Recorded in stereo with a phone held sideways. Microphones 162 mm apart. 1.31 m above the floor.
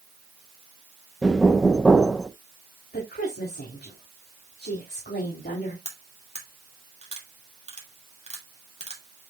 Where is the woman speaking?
90° left, 3.5 m.